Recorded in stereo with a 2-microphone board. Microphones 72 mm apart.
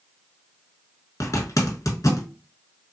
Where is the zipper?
50° left (ahead or behind), 0.8 m.